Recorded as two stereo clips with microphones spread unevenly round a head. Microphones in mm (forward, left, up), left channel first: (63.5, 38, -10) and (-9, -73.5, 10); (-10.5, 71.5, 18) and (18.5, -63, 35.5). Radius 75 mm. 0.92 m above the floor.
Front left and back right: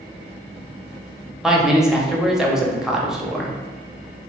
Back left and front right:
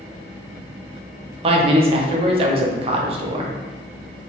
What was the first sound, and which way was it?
A man speaking, 30° right.